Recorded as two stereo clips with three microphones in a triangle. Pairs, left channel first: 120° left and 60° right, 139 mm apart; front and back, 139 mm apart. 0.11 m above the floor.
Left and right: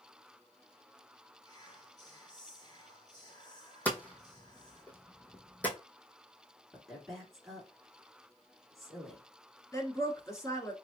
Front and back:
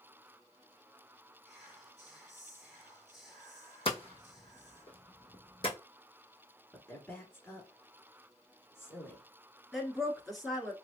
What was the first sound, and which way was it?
Whispering, 90° left.